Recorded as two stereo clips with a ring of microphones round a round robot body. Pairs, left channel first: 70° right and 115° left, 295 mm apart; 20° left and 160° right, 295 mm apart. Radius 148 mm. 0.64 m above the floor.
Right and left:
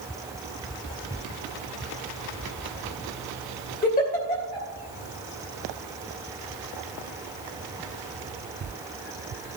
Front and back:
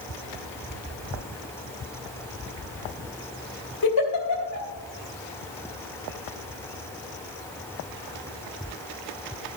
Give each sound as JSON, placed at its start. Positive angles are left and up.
{"t": 3.8, "sound": "a giggle", "azimuth_deg": -5, "distance_m": 2.5}